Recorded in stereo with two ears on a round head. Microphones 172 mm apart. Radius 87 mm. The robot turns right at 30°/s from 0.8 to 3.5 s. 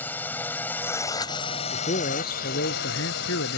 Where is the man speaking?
35° left; by 3.6 s 90° left.